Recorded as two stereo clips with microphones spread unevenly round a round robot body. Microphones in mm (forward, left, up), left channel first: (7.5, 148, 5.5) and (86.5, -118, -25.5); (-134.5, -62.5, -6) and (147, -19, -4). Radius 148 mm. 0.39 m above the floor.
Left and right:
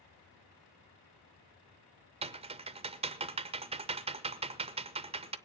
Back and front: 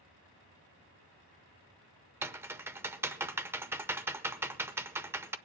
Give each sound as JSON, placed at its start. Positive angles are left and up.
{"t": 2.2, "sound": "typing on a keyboard", "azimuth_deg": -65, "distance_m": 0.6}